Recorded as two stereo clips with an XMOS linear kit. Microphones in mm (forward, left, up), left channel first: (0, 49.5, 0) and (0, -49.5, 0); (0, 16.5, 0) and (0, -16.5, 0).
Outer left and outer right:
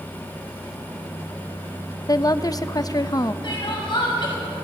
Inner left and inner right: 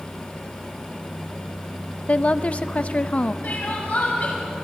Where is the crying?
55° left (ahead or behind), 5.5 m.